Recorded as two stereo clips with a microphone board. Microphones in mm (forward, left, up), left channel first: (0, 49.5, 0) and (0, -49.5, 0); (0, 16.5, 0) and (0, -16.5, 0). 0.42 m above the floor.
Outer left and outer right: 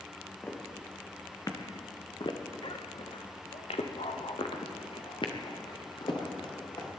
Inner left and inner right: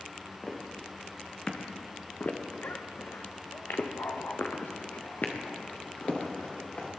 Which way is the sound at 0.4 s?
20° left (ahead or behind).